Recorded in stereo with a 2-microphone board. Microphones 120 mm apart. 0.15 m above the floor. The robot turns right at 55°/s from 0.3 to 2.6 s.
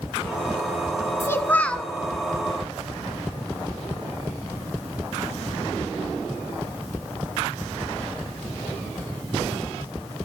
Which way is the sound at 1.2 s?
135° left.